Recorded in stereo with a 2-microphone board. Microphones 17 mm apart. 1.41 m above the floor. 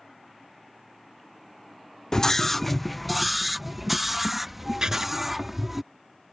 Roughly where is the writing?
Right.